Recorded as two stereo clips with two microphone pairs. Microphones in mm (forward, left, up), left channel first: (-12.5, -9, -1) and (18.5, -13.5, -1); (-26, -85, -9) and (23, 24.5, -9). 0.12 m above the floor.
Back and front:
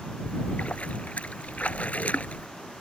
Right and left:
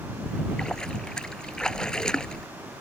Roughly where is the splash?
Behind.